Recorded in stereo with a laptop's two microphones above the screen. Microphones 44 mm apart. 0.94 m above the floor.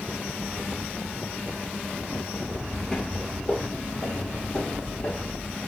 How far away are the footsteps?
About 1.4 m.